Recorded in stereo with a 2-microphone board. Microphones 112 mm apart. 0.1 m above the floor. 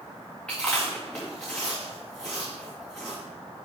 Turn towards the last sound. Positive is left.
turn(degrees=10)  # may be behind; listen again after turning